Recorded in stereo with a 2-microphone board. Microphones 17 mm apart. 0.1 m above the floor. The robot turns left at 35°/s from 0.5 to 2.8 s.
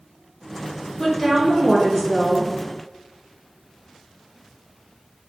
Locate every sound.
1.0 s a woman speaking: 20° left (ahead or behind), 1.4 m; by 2.5 s 10° left (ahead or behind), 1.4 m